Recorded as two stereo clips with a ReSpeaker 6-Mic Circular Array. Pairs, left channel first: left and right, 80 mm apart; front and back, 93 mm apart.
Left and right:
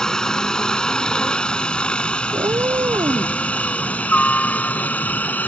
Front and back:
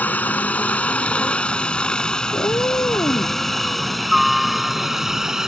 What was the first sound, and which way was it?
A helicopter, 25° left.